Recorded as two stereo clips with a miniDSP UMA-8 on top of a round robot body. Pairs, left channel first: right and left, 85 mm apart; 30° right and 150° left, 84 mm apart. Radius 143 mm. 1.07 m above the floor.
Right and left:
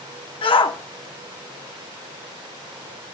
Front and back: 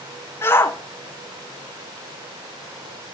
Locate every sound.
0.4 s a shout: 95° right, 1.1 m